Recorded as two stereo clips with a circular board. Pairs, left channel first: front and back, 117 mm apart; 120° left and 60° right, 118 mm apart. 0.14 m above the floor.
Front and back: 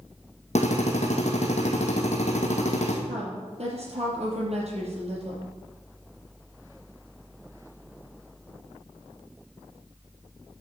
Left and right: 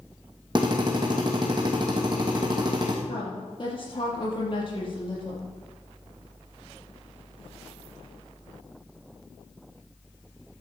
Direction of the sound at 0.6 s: 10° right.